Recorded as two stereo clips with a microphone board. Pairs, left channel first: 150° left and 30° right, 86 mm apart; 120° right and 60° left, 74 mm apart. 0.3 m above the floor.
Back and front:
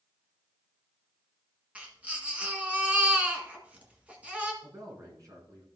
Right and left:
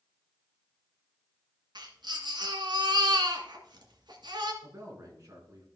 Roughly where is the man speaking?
Ahead.